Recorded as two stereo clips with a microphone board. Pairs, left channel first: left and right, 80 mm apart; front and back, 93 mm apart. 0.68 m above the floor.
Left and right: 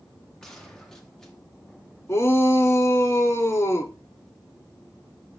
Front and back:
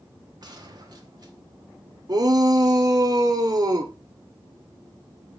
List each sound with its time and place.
0.4 s a gunshot: 170° left, 1.4 m
2.1 s a shout: 140° left, 1.2 m